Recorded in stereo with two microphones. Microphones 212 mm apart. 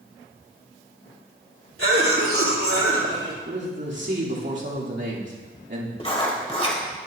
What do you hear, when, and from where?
1.8 s a cough: 80° right, 3 m
3.5 s a man speaking: 55° right (ahead or behind), 2.5 m
6.0 s writing: 30° left (ahead or behind), 1.6 m